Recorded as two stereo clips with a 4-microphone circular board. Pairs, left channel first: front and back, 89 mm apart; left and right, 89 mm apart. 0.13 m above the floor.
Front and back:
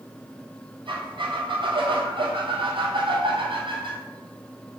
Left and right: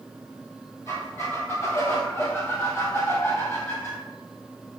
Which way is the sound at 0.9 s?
155° left.